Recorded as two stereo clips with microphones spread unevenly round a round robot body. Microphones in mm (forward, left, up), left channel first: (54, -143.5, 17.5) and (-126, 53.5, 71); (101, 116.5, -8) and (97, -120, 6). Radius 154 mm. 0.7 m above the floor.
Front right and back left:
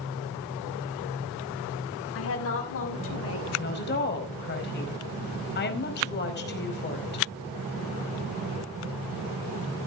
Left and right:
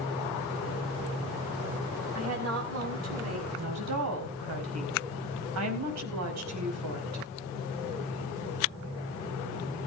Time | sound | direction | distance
2.1 | a woman speaking | 80° right | 5.5 m
3.6 | a woman speaking | 95° right | 4.5 m